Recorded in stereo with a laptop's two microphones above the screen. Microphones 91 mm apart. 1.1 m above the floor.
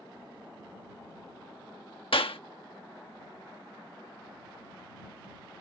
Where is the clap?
75° left (ahead or behind).